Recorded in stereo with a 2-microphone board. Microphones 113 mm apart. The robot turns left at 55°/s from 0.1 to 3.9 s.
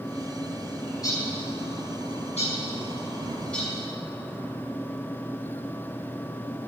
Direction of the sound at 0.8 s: 20° left (ahead or behind).